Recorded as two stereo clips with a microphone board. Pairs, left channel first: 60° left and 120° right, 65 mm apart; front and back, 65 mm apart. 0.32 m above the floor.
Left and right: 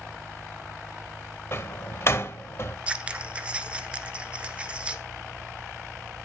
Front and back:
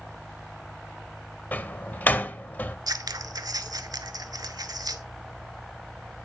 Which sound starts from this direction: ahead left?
A door slam, at 1.5 s.